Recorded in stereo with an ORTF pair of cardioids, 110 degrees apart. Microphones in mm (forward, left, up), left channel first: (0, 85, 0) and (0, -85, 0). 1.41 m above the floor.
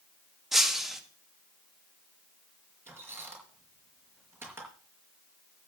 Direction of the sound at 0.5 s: 5° right.